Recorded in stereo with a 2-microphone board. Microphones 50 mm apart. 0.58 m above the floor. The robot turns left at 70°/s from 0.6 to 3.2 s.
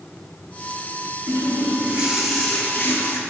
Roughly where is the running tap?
Right.